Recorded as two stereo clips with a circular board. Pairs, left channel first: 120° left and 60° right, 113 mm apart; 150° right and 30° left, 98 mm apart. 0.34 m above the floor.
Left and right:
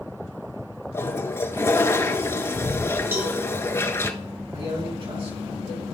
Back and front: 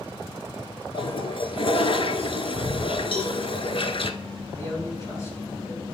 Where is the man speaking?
90° right, 3.5 m.